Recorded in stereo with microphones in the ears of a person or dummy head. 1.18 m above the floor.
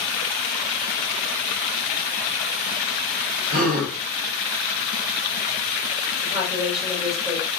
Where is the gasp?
40° right (ahead or behind), 0.8 m.